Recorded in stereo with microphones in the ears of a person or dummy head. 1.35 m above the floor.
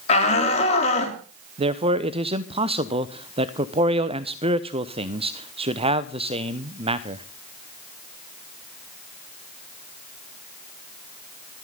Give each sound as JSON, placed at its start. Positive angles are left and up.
{"t": 0.1, "sound": "a shout", "side_deg": 45, "distance_m": 3.5}
{"t": 1.6, "sound": "a man speaking", "side_deg": -30, "distance_m": 0.8}